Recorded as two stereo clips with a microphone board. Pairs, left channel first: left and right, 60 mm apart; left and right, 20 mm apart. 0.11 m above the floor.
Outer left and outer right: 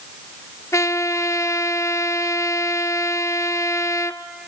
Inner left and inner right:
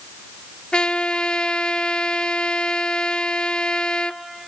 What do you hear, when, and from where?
0.7 s a trumpet: 55° left (ahead or behind), 0.7 m